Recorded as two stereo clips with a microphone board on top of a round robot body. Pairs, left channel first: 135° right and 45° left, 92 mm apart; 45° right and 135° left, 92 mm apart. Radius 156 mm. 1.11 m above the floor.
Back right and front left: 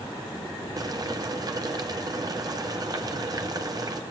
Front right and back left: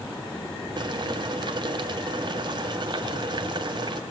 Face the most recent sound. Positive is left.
turn(degrees=95)